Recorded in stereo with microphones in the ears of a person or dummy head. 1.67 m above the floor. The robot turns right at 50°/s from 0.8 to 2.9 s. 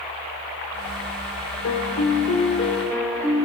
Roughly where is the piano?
Left.